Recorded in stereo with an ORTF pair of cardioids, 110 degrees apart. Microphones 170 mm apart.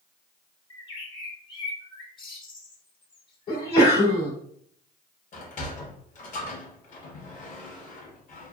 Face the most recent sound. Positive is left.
turn(degrees=45)